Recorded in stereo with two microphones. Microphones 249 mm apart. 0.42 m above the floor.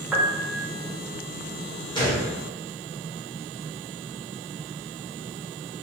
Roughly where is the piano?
Centre.